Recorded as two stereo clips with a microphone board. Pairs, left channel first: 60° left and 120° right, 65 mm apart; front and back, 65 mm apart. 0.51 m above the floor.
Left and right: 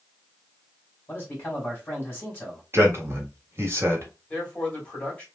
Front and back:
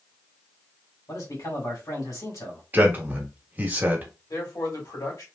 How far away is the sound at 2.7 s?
About 1.2 m.